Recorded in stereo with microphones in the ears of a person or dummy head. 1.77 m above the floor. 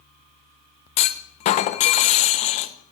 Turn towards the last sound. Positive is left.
turn(degrees=40)  # may be behind; listen again after turning